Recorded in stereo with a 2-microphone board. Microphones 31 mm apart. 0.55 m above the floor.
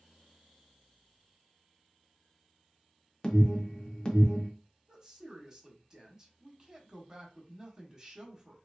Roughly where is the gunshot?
I don't hear a gunshot.